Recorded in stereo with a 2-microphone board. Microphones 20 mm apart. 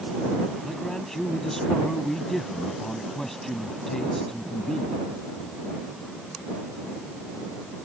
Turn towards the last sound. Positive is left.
turn(degrees=20)  # may be behind; listen again after turning